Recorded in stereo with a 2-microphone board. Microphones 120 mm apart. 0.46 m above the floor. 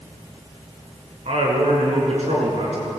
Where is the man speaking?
65° right (ahead or behind), 6.5 m; by 2.9 s 70° right (ahead or behind), 7.5 m.